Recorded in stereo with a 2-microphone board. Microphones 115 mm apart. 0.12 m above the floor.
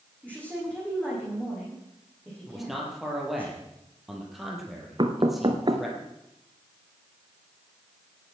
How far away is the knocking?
About 1.4 m.